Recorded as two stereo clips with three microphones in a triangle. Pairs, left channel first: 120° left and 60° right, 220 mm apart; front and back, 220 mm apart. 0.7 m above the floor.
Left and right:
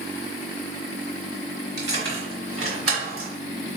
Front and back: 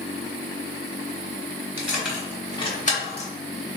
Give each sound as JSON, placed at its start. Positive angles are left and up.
{"t": 1.8, "sound": "keys jangling", "azimuth_deg": -100, "distance_m": 1.8}